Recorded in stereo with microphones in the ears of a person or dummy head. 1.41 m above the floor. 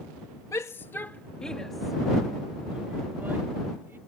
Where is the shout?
15° left (ahead or behind); by 4.0 s 10° right (ahead or behind).